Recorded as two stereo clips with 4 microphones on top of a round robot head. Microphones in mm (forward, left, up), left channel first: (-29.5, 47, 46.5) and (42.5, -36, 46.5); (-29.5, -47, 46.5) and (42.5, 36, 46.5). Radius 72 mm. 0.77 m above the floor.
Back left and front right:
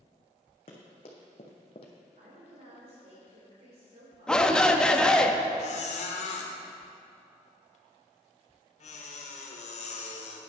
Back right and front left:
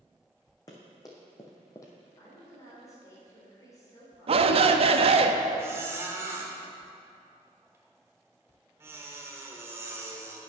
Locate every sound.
0.7 s running footsteps: 170° left, 2 m; by 1.9 s 165° left, 1.1 m
2.2 s a woman speaking: 70° right, 3.5 m
4.3 s a shout: 50° left, 0.9 m
5.6 s a squeak: 115° left, 1.2 m